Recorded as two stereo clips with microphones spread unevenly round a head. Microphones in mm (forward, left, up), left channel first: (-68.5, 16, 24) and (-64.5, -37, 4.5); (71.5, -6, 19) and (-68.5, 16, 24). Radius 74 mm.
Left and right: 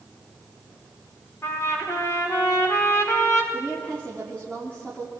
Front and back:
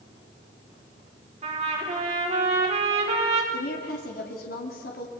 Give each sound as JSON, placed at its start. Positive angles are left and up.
{"t": 1.4, "sound": "a trumpet", "azimuth_deg": 125, "distance_m": 4.5}
{"t": 3.5, "sound": "a woman speaking", "azimuth_deg": 10, "distance_m": 3.0}